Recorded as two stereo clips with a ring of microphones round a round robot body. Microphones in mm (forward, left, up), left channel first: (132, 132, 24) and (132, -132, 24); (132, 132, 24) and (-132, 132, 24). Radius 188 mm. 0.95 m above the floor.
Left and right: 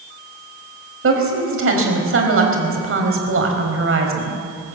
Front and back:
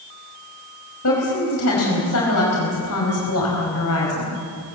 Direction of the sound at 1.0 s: 50° right.